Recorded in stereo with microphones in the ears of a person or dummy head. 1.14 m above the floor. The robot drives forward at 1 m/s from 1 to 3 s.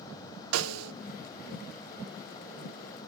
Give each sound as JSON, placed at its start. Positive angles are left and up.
{"t": 0.5, "sound": "a snare drum", "side_deg": -80, "distance_m": 0.5}